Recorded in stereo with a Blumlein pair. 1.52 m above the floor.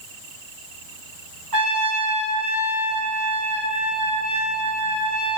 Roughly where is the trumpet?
Ahead right.